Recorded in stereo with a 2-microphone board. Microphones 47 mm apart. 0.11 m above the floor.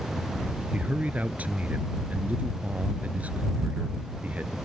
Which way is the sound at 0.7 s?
35° right (ahead or behind).